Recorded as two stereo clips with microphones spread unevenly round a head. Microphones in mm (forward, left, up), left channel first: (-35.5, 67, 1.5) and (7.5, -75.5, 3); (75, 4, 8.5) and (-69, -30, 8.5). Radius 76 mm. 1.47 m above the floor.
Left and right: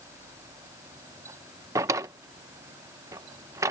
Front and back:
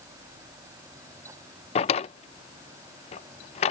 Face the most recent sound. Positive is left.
turn(degrees=-10)